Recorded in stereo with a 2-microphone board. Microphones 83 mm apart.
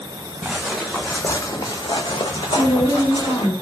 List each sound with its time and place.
0.4 s footsteps: 10° right (ahead or behind), 0.8 m; by 3.5 s 70° left (ahead or behind), 1.2 m
2.5 s a woman speaking: 25° left (ahead or behind), 1.8 m